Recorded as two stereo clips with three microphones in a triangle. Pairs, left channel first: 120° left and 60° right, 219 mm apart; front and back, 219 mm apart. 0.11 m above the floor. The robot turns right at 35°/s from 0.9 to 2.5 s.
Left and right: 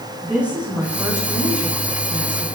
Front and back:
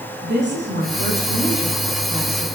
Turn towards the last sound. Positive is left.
turn(degrees=-90)